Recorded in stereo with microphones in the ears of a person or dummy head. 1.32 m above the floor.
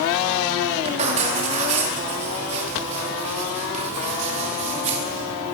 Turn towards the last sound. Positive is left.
turn(degrees=-40)  # may be behind; listen again after turning